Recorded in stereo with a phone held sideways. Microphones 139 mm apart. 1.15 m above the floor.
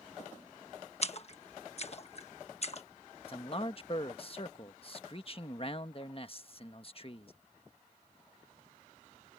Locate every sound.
1.0 s a splash: 45° left (ahead or behind)
3.3 s a man speaking: 40° left (ahead or behind)